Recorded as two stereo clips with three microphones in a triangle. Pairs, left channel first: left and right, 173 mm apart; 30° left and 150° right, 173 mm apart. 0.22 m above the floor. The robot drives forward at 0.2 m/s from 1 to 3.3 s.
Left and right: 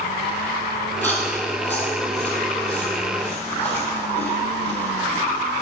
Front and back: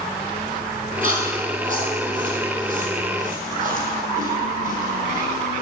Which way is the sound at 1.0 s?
170° left.